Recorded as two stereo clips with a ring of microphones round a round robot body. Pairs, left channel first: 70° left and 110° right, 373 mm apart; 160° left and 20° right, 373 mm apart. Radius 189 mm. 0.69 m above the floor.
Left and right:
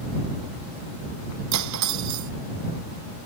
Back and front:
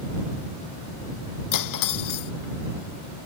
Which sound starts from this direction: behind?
Cutlery clinking, at 1.5 s.